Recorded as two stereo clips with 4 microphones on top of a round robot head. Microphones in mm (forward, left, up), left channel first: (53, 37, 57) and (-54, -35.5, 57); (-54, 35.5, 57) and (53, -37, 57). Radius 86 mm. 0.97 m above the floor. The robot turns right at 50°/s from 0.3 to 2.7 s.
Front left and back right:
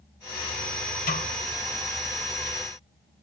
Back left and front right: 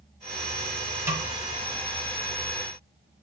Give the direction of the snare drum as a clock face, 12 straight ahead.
11 o'clock.